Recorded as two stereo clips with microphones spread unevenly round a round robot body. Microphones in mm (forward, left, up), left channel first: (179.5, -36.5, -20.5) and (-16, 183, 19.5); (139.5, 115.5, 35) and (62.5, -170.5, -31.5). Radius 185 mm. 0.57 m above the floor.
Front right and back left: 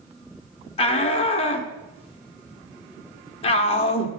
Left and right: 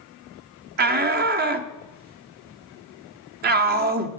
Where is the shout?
100° right, 0.8 m.